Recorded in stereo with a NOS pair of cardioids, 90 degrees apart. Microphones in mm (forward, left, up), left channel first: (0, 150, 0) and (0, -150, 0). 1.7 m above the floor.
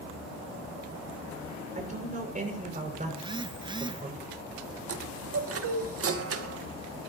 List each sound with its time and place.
1.8 s a man speaking: 25° right, 7.5 m
3.1 s a phone buzzing: 15° right, 0.7 m
4.9 s a chime: 50° right, 2 m